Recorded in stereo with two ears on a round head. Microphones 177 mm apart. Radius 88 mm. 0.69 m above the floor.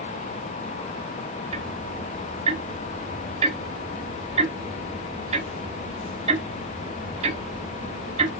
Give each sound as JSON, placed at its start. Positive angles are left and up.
{"t": 1.5, "sound": "ticking", "side_deg": -30, "distance_m": 1.1}